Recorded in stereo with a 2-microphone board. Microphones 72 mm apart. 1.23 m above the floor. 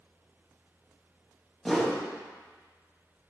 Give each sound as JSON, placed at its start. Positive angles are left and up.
{"t": 1.6, "sound": "a whoosh", "side_deg": 5, "distance_m": 1.1}